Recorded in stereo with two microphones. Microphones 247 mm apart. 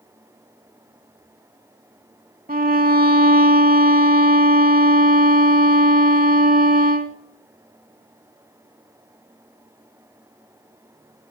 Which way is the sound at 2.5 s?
35° right (ahead or behind).